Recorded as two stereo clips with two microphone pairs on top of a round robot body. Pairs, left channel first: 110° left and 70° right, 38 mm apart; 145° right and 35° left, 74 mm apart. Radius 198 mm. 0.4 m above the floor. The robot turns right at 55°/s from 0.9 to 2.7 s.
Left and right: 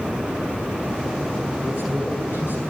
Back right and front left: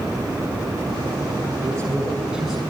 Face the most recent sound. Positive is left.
turn(degrees=135)